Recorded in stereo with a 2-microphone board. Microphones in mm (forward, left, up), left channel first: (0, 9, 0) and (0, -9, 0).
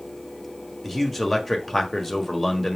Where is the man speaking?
5° right (ahead or behind), 1.4 m.